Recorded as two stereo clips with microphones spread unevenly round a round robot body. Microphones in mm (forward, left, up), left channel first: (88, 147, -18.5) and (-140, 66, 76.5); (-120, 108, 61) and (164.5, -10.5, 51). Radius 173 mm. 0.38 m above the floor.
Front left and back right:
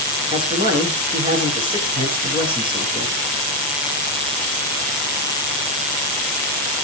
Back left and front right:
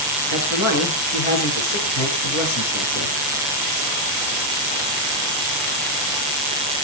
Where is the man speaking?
125° left, 8.5 m.